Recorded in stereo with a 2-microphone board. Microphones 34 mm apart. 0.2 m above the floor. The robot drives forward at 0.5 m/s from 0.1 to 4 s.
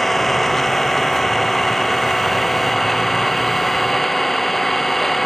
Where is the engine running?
5° left (ahead or behind).